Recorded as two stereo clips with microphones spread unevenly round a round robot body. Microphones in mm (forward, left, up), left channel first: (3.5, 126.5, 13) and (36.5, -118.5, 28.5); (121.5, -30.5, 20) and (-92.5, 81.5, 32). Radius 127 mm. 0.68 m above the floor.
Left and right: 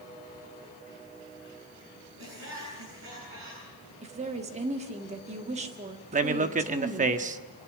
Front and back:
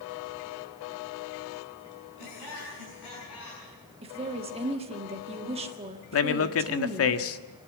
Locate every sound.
2.2 s laughter: 45° right, 8 m
4.0 s a woman speaking: 145° right, 1.7 m
6.1 s a man speaking: 25° right, 1.2 m